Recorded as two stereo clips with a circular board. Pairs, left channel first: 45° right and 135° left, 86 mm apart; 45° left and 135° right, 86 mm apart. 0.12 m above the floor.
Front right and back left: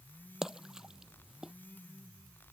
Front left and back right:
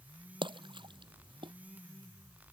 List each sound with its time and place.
0.4 s a splash: 140° right